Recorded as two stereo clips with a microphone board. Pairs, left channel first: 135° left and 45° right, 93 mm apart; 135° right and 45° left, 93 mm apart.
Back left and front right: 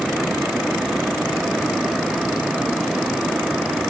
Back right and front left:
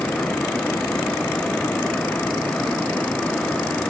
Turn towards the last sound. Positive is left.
No sound to turn to.